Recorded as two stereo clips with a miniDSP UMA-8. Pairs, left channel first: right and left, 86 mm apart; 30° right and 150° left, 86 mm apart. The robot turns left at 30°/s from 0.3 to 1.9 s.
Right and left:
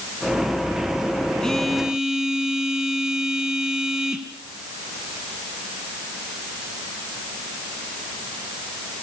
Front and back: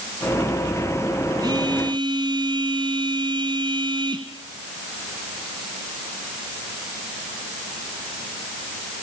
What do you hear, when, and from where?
1.4 s a phone buzzing: 170° right, 2.5 m; by 4.3 s 175° left, 2.5 m